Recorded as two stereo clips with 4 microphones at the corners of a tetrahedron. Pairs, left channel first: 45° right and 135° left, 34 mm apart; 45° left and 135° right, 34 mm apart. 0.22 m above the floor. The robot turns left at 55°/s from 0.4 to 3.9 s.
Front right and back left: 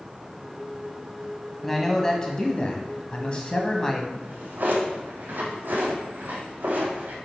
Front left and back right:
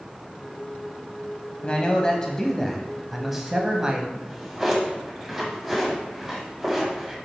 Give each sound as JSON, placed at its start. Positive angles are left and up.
{"t": 1.6, "sound": "a man speaking", "azimuth_deg": 30, "distance_m": 1.0}
{"t": 4.1, "sound": "a drawer", "azimuth_deg": 150, "distance_m": 3.0}